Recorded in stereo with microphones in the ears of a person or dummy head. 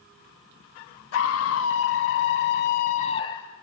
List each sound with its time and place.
1.1 s a scream: 80° left, 2.0 m; by 3.5 s 10° left (ahead or behind), 0.9 m